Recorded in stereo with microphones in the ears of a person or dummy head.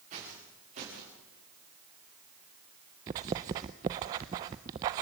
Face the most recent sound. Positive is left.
turn(degrees=-20)  # may be behind; listen again after turning